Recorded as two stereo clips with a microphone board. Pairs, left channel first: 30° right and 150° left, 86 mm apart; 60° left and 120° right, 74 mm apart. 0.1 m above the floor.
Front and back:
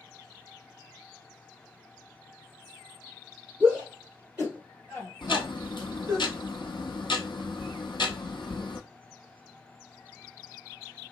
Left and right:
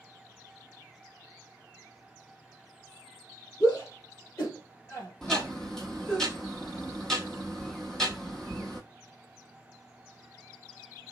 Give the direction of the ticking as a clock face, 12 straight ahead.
1 o'clock.